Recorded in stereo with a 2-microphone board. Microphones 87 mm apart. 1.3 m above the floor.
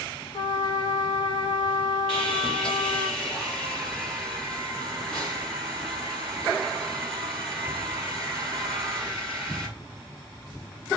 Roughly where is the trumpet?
Left.